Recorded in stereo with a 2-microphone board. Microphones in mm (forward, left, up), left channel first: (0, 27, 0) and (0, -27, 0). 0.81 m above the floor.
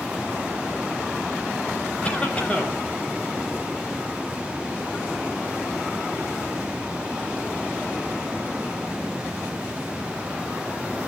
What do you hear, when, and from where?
2.0 s a cough: 25° left (ahead or behind), 4.5 m